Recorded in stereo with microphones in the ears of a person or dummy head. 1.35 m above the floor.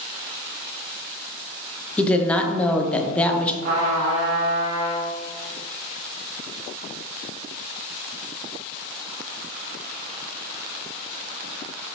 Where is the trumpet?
55° right (ahead or behind), 1.6 m.